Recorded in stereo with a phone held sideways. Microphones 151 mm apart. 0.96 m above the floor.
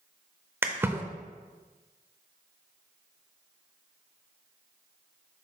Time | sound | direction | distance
0.6 | a splash | 15° right (ahead or behind) | 0.7 m